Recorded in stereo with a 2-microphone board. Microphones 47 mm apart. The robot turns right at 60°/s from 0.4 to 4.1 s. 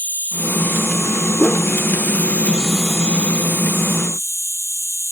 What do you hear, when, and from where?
0.0 s an insect: 35° left; by 5.1 s 105° right
1.4 s a whoosh: 20° left (ahead or behind); by 1.7 s 5° left (ahead or behind)